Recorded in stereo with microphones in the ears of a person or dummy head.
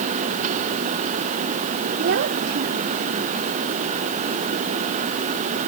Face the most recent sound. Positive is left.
turn(degrees=-65)  # may be behind; listen again after turning